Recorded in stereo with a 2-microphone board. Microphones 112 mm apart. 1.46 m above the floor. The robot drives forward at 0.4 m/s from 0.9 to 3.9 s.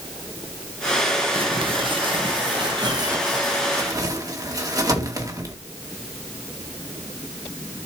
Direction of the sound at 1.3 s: 55° right (ahead or behind).